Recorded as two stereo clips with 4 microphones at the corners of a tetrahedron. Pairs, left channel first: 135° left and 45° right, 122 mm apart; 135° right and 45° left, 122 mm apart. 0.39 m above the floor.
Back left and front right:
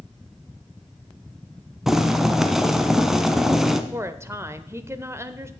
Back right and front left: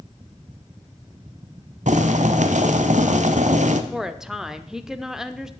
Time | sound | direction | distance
1.9 | boiling | 40° left | 0.9 m
3.9 | a woman speaking | 35° right | 0.8 m